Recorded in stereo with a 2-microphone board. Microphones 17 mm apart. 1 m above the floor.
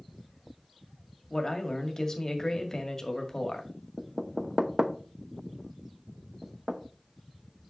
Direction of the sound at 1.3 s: 25° left (ahead or behind).